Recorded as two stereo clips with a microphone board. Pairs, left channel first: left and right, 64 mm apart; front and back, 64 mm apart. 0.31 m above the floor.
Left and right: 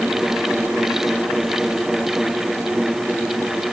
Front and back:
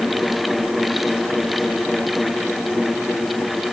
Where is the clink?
I don't hear a clink.